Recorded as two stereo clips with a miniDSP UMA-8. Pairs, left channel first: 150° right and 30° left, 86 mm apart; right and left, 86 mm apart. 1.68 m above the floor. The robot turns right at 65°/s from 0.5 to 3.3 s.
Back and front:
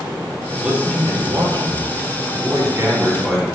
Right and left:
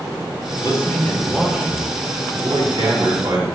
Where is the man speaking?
50° right, 4 m; by 3.5 s 130° left, 4 m.